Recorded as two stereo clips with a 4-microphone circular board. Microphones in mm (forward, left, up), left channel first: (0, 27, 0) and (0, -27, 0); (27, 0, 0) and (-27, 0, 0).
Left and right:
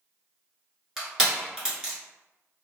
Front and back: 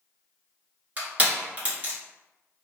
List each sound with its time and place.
1.0 s crushing: 160° right, 1.3 m